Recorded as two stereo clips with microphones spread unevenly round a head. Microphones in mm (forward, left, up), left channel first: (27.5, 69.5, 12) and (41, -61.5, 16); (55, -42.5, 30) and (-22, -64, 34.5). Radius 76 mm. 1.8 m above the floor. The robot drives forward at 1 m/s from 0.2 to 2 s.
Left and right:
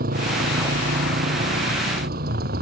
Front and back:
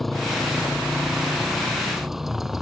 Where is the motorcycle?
75° right; by 2.6 s 80° right.